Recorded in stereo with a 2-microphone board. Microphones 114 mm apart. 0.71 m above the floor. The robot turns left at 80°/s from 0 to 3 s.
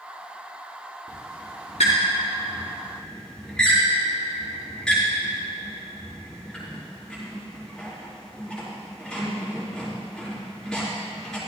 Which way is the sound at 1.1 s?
20° left (ahead or behind).